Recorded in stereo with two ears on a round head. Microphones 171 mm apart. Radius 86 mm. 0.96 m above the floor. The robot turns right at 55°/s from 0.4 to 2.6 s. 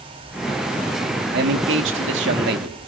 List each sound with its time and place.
1.3 s a man speaking: 125° right, 1.8 m; by 2.8 s 55° right, 1.8 m